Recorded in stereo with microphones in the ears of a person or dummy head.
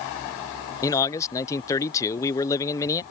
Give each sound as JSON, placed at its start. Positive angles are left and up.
{"t": 0.8, "sound": "a man speaking", "side_deg": 15}